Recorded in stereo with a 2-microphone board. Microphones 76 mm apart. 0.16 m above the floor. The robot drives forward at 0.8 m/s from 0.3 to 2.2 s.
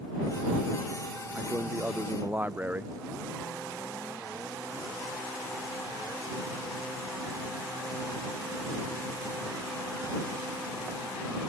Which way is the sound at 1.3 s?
20° right (ahead or behind).